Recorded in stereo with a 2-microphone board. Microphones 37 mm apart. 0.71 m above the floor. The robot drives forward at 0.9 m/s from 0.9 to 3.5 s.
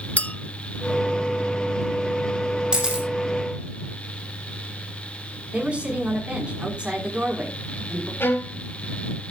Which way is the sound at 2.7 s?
20° right (ahead or behind).